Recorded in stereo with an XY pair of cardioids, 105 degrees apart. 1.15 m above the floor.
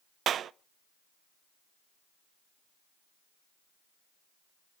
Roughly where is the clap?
Ahead right.